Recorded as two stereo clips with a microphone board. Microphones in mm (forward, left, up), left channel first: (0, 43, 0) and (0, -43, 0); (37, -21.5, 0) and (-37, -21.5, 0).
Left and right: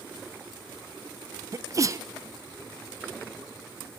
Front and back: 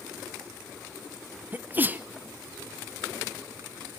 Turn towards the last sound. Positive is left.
turn(degrees=-125)